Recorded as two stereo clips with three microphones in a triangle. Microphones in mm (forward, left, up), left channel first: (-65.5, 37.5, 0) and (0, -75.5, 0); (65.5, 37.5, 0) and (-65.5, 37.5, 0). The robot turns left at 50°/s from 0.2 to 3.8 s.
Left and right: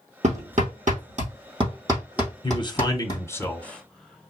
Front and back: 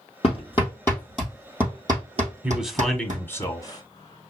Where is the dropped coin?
I don't hear a dropped coin.